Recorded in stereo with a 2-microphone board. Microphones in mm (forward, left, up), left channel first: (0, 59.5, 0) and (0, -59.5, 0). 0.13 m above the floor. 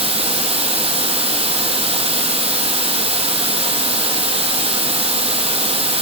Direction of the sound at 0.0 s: 60° right (ahead or behind).